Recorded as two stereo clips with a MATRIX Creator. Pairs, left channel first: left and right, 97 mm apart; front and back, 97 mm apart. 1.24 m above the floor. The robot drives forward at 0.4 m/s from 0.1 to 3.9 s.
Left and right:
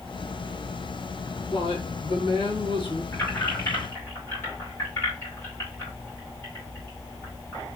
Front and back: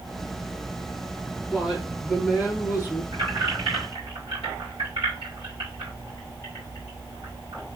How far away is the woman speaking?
About 1.6 m.